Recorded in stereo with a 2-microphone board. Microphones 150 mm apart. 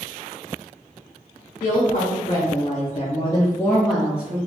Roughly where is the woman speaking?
Left.